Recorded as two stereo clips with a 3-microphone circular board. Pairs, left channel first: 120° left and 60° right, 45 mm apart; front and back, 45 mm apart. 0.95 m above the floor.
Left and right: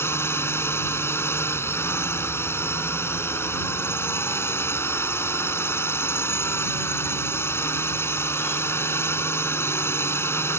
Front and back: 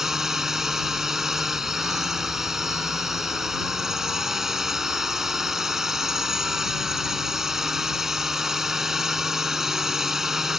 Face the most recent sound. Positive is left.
turn(degrees=100)